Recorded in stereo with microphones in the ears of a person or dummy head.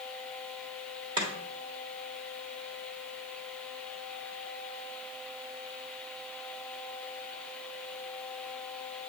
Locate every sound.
1.2 s chopping: 25° right (ahead or behind), 1.8 m